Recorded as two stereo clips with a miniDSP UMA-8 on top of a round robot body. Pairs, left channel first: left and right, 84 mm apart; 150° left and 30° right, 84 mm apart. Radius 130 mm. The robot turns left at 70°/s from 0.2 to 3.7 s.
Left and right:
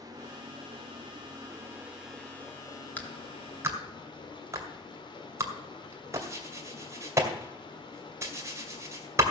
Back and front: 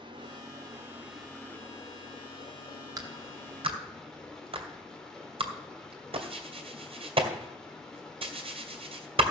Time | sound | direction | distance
0.0 | running water | 50° right | 1.8 m
3.0 | a clap | 20° left | 2.5 m